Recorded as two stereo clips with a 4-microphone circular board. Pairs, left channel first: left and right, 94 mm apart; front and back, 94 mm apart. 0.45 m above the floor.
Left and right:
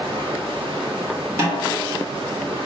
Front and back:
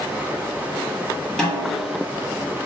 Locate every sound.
0.0 s running water: 110° right, 1.0 m
1.4 s a snare drum: 80° right, 1.4 m